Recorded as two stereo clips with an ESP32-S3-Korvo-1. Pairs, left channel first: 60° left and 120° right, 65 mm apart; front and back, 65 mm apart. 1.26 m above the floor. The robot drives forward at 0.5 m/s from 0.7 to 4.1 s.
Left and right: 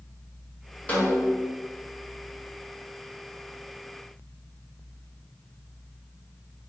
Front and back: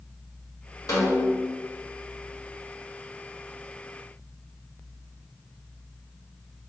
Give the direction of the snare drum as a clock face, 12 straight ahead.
12 o'clock.